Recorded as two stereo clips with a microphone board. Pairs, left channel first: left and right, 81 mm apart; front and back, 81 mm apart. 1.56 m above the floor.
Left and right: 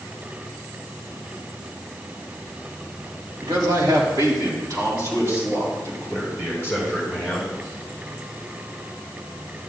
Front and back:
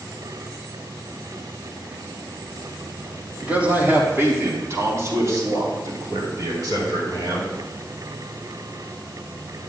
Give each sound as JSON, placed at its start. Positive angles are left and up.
{"t": 3.4, "sound": "a man speaking", "azimuth_deg": -105, "distance_m": 3.0}